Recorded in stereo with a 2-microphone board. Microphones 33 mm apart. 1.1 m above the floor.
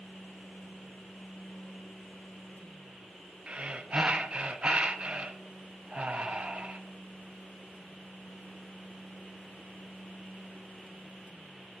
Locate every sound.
3.5 s breathing: 35° right (ahead or behind), 0.5 m